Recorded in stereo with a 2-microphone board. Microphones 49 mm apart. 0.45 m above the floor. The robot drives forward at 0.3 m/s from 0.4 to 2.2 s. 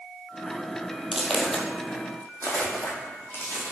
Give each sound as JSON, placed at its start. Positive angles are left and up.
{"t": 1.1, "sound": "footsteps", "side_deg": -5, "distance_m": 0.7}